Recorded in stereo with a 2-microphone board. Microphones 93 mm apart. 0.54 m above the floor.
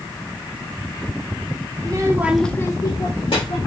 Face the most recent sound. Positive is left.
turn(degrees=70)  # may be behind; listen again after turning